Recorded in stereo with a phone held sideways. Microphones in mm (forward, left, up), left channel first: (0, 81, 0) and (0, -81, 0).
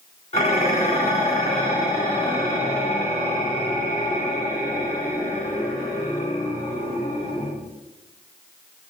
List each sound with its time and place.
0.3 s dishes clattering: 40° left (ahead or behind), 1.6 m